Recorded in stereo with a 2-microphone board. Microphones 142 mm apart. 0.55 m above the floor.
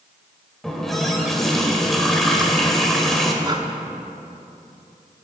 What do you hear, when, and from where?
0.6 s a running tap: 5° left (ahead or behind), 1.4 m
3.4 s breathing: 30° right (ahead or behind), 0.8 m